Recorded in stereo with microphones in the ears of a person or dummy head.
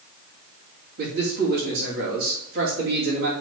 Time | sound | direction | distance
1.0 | a man speaking | 75° right (ahead or behind) | 2.5 m